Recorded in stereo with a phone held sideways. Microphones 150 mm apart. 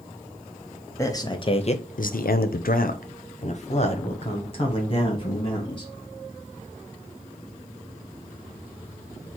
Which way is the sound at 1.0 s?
20° left (ahead or behind).